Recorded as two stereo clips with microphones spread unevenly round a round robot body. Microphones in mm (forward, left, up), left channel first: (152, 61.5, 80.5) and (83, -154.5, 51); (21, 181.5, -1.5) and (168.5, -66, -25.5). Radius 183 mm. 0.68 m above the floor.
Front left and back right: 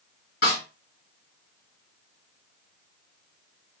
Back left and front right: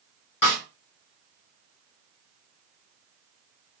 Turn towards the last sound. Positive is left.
turn(degrees=125)